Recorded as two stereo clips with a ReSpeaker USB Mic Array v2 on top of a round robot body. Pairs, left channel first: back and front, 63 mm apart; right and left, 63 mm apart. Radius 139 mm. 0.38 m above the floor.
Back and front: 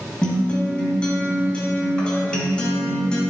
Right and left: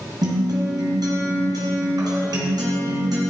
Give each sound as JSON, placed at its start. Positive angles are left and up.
{"t": 0.2, "sound": "a guitar", "azimuth_deg": 105, "distance_m": 1.6}